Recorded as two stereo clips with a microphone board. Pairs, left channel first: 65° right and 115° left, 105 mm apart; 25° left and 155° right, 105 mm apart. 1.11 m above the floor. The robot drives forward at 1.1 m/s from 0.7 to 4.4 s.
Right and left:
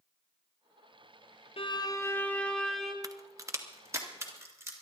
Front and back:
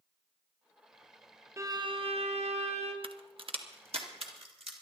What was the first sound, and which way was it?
A violin, 95° right.